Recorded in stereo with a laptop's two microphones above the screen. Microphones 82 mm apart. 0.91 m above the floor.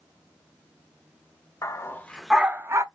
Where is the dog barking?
40° left (ahead or behind), 0.8 m; by 2.9 s 40° right (ahead or behind), 0.7 m.